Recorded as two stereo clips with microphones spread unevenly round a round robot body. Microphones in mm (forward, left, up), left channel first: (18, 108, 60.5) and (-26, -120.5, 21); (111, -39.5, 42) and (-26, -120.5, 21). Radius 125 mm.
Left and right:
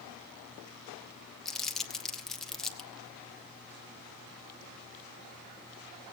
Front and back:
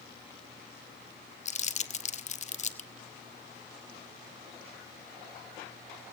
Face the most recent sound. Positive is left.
turn(degrees=-15)